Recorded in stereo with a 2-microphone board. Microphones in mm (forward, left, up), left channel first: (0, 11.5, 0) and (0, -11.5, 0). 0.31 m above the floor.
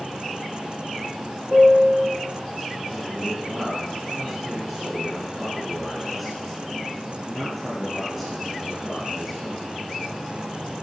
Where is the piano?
65° right (ahead or behind), 4 m.